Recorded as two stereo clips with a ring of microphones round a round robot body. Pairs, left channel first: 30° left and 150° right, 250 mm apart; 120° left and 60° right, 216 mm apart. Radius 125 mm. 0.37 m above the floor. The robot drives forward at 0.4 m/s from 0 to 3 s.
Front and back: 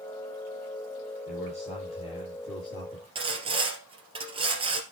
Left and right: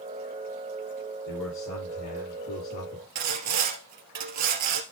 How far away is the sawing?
About 2.5 m.